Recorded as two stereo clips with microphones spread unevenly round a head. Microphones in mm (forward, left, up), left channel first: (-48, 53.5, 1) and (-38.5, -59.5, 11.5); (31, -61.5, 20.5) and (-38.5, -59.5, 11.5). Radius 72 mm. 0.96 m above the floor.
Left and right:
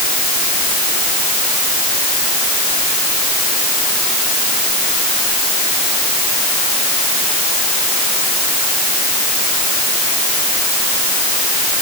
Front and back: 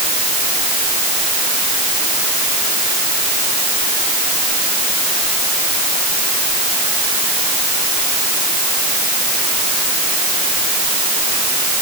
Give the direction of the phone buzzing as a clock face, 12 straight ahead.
No phone buzzing in this recording.